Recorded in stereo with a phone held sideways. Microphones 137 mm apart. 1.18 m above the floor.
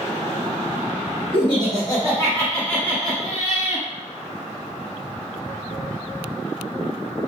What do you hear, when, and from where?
1.3 s laughter: 40° left (ahead or behind), 1.7 m; by 3.9 s 10° right (ahead or behind), 1.8 m